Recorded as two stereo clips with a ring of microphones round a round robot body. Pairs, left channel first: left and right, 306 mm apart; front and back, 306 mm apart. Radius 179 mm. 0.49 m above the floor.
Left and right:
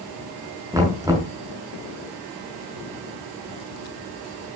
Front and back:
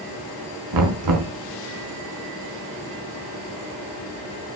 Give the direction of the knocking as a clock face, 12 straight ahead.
6 o'clock.